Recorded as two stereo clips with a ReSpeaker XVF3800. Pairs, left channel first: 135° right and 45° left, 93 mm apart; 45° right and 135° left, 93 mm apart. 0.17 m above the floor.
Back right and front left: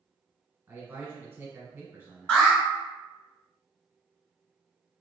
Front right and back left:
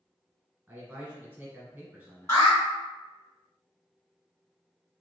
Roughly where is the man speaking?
Left.